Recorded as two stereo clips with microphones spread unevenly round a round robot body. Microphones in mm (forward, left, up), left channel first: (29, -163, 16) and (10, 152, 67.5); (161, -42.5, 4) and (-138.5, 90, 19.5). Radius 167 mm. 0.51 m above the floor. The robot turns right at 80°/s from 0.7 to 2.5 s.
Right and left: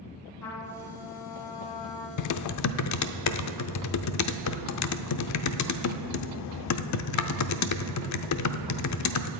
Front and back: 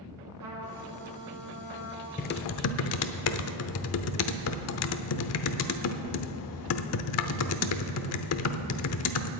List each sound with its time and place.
0.4 s a trumpet: 170° right, 2.5 m; by 2.1 s 60° right, 2.5 m
2.2 s typing on a keyboard: 90° right, 0.6 m; by 9.3 s 65° right, 0.6 m